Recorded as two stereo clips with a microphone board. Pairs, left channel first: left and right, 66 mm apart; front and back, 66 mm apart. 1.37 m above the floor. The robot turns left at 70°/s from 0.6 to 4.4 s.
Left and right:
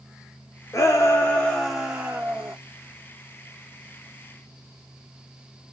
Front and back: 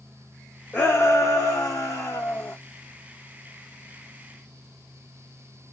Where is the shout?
65° left, 0.7 m; by 2.5 s 65° right, 0.7 m.